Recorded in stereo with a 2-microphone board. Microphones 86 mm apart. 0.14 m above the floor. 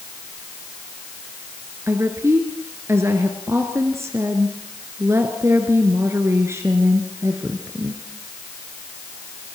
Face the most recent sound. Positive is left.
turn(degrees=-30)  # may be behind; listen again after turning